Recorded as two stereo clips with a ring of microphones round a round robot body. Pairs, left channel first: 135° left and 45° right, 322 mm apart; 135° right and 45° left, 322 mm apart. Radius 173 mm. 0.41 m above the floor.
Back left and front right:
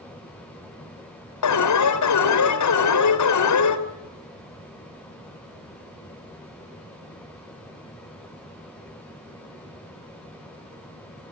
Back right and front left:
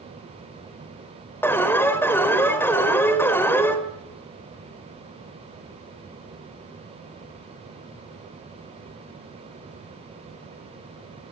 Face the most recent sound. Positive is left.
turn(degrees=145)